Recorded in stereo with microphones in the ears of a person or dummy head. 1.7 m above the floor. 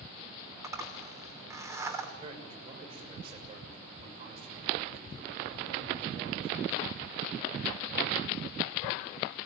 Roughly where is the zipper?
Centre.